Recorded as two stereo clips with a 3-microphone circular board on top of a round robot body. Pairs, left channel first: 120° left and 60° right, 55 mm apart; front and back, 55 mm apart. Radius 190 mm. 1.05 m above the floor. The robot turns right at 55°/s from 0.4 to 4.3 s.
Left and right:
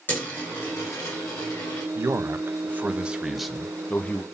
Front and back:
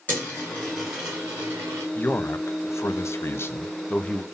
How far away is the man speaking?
About 0.8 m.